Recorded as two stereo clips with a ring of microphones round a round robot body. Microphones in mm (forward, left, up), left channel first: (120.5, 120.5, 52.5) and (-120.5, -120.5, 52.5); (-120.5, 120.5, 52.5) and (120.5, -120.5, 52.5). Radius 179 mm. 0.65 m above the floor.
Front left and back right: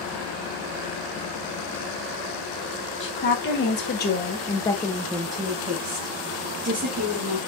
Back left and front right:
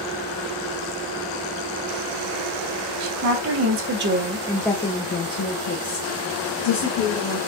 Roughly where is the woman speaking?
Ahead.